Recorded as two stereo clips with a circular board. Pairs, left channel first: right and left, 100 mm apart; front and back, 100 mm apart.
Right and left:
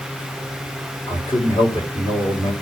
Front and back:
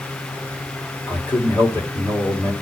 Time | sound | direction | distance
1.1 | a man speaking | 65° right | 2 m